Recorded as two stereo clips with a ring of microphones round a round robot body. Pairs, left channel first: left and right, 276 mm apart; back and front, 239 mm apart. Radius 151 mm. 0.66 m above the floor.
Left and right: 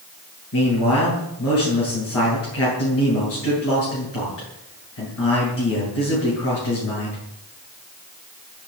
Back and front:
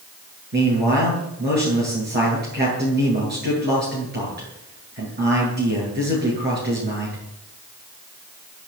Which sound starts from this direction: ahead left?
A man speaking, at 0.5 s.